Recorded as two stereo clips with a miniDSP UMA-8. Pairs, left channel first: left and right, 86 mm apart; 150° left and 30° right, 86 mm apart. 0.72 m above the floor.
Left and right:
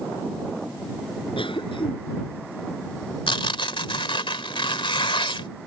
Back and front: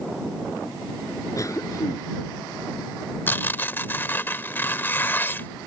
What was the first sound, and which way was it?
A cough, 100° left.